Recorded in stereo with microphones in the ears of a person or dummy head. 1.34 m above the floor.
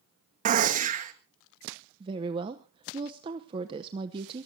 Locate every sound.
0.5 s a gunshot: 35° right (ahead or behind), 1.5 m
2.0 s a woman speaking: 35° right (ahead or behind), 0.9 m